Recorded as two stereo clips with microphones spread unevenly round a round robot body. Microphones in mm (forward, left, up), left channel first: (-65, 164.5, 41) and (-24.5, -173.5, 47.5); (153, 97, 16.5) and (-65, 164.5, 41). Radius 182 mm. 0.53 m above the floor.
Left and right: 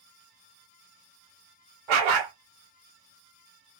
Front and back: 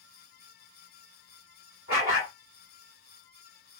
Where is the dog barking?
70° right, 1.1 m.